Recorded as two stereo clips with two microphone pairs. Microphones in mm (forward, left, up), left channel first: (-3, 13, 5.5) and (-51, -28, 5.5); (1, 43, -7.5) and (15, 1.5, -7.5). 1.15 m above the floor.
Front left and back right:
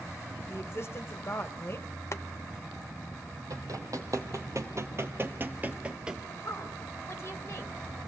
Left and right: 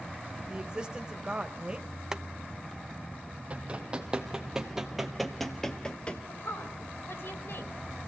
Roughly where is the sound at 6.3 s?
Left.